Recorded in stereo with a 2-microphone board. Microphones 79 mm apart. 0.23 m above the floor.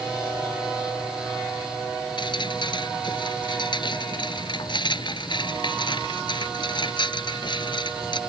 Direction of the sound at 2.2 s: 65° left (ahead or behind).